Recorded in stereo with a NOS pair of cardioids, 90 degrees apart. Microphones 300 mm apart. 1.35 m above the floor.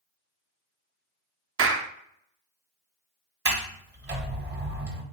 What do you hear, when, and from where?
1.6 s a clap: 45° right, 0.7 m
3.5 s a sliding door: 35° right, 1.1 m